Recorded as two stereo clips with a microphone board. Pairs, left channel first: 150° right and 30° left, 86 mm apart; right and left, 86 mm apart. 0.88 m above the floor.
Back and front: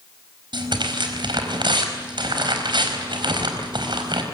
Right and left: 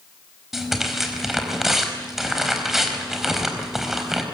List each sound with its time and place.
0.5 s tearing paper: 5° left, 4.5 m